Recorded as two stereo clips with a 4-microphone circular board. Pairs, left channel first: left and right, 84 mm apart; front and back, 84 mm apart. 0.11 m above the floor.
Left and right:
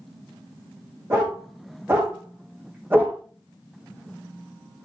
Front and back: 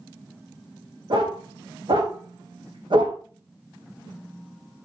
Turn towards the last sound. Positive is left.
turn(degrees=-160)